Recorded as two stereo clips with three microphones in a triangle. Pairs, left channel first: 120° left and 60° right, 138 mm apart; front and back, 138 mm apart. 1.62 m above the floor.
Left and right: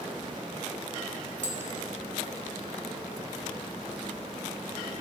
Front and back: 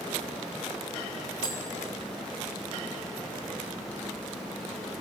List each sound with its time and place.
1.4 s tapping: 60° right, 1.0 m